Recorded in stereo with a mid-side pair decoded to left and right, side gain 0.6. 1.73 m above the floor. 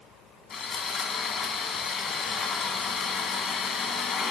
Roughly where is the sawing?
Ahead left.